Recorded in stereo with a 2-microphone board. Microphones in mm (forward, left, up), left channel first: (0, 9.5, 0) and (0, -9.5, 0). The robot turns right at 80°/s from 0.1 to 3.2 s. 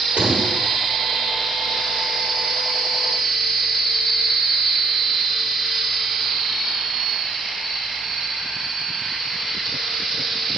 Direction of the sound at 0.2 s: 85° right.